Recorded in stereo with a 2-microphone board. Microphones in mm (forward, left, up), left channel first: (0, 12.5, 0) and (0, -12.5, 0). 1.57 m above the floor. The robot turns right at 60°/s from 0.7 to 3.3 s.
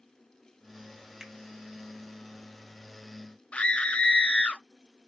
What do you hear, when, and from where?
1.2 s a finger snap: 20° right (ahead or behind), 1.4 m; by 1.3 s 25° right (ahead or behind), 1.4 m
3.5 s a scream: 45° left (ahead or behind), 0.7 m